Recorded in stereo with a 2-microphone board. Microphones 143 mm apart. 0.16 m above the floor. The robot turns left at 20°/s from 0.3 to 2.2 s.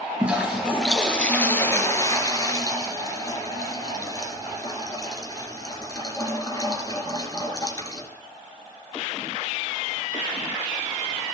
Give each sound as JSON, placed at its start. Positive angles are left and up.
{"t": 0.2, "sound": "a toilet flushing", "azimuth_deg": -170, "distance_m": 3.0}